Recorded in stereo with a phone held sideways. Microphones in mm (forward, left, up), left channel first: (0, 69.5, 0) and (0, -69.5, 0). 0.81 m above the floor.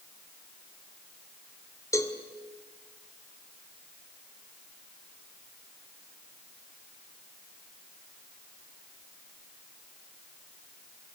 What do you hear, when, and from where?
1.9 s a cowbell: 20° left (ahead or behind), 2.5 m